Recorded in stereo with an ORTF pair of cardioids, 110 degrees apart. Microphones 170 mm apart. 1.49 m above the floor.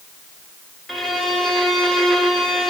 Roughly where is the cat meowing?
No cat meowing in this recording.